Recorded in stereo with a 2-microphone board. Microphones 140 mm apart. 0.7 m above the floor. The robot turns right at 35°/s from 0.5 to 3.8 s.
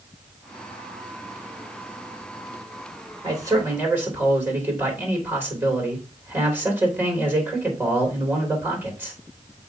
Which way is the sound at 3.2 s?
35° right (ahead or behind).